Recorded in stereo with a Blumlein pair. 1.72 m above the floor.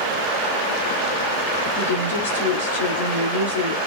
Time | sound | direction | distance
1.8 | a woman speaking | 55° left | 1.5 m